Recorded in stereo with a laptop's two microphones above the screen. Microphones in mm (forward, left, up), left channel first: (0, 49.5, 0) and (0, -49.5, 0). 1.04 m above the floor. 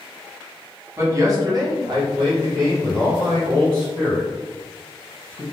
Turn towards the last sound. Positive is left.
turn(degrees=-35)  # may be behind; listen again after turning